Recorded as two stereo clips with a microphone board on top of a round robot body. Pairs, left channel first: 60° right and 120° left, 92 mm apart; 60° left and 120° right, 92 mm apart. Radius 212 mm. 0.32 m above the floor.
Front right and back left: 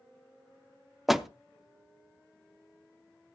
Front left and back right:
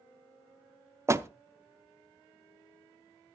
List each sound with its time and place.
1.1 s a door slam: 155° right, 0.9 m